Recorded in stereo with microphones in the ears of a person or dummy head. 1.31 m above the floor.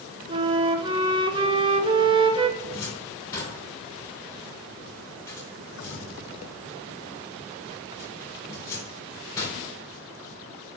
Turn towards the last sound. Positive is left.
turn(degrees=15)  # may be behind; listen again after turning